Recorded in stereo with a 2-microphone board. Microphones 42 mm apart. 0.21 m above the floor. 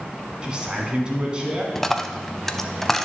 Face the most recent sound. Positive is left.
turn(degrees=10)  # may be behind; listen again after turning